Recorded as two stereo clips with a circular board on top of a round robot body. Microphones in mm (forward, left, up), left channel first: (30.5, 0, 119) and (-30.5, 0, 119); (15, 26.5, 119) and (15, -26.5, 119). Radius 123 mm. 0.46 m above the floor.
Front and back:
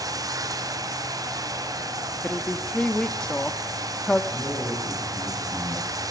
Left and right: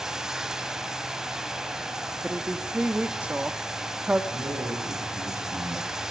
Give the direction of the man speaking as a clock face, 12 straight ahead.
3 o'clock.